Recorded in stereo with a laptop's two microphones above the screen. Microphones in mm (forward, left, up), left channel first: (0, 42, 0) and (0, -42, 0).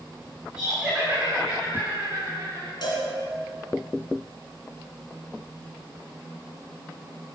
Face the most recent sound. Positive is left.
turn(degrees=55)  # may be behind; listen again after turning